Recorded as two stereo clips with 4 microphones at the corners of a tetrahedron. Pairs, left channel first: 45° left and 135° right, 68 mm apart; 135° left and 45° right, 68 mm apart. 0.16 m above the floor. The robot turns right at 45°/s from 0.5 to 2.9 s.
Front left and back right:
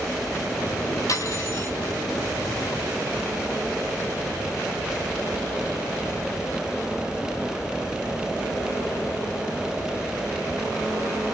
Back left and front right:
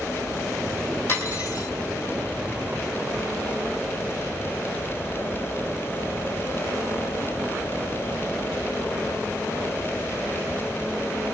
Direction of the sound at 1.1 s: 75° left.